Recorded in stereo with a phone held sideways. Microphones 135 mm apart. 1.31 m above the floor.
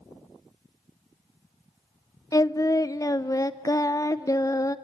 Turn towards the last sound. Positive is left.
turn(degrees=25)  # may be behind; listen again after turning